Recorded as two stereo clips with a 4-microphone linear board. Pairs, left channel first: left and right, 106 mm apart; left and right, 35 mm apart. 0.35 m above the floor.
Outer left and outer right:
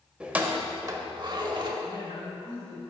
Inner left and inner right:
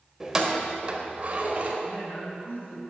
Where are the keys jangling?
10° right (ahead or behind), 0.7 m; by 1.7 s 45° right (ahead or behind), 0.9 m.